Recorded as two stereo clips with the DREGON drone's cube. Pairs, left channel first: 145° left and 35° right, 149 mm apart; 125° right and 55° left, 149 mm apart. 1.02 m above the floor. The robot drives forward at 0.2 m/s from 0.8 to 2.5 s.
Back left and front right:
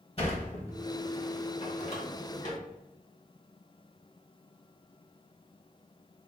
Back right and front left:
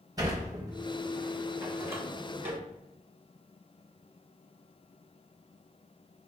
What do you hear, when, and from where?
0.2 s a sliding door: 115° left, 1.2 m; by 2.6 s 130° left, 1.3 m